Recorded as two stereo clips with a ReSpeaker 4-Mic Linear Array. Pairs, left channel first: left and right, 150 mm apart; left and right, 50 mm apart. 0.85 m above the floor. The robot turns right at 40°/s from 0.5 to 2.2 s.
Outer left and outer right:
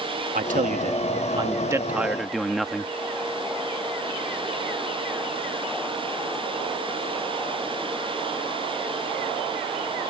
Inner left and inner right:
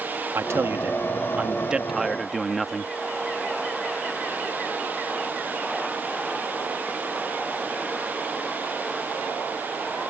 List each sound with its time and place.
0.3 s a man speaking: 70° right; by 2.9 s straight ahead